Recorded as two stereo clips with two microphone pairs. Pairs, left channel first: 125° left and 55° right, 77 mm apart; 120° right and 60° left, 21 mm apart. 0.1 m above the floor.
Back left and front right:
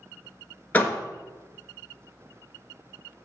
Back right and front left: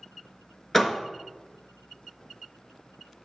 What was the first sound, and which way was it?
A door slam, 170° left.